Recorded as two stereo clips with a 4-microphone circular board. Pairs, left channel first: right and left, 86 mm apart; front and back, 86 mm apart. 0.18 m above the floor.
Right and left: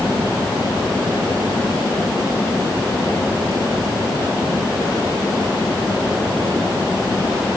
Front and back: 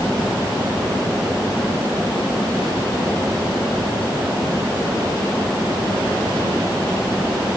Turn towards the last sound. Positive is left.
No sound to turn to.